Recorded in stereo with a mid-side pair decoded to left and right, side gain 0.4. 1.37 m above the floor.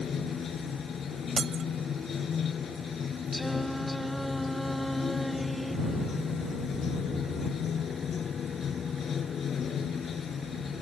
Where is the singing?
5° left.